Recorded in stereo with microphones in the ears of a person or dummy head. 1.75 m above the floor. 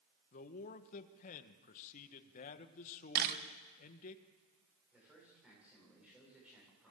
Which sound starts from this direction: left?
A man speaking, at 0.3 s.